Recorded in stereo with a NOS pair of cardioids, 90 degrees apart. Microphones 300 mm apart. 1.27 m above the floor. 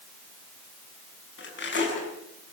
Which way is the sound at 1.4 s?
40° left.